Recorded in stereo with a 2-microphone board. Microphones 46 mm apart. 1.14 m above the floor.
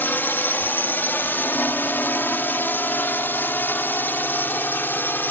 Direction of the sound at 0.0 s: 50° left (ahead or behind).